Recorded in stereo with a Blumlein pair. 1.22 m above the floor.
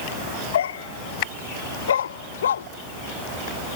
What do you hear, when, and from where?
0.5 s a dog barking: 60° left; by 2.7 s 65° left